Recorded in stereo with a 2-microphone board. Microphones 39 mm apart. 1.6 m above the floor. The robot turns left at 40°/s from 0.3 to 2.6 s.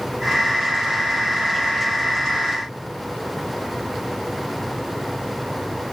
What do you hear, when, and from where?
Only background noise.